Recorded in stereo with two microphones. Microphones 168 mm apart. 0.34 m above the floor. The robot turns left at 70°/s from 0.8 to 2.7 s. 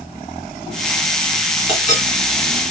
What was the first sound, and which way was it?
A clink, 35° left (ahead or behind).